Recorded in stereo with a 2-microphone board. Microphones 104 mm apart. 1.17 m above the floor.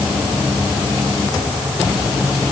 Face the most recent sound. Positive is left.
No sound to turn to.